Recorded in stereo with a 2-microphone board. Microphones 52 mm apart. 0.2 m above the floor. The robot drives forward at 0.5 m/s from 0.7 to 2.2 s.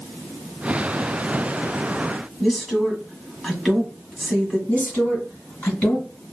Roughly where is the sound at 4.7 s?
Left.